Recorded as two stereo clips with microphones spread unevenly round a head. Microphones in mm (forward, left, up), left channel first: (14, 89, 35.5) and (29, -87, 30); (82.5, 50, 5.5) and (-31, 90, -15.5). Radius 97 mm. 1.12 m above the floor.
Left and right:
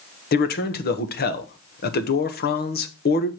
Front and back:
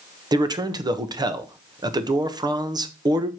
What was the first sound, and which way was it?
A man speaking, 115° left.